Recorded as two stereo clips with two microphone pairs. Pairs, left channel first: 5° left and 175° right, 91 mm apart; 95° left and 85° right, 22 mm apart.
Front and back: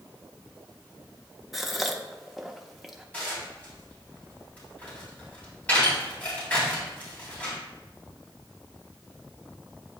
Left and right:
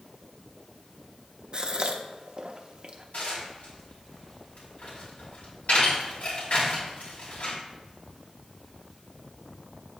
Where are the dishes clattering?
75° left, 3.5 m.